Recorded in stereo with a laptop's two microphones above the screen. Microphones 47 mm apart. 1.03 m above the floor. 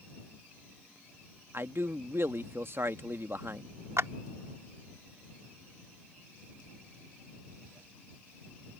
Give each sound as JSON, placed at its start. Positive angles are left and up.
{"t": 1.5, "sound": "a man speaking", "side_deg": -55}
{"t": 4.0, "sound": "a clap", "side_deg": -75}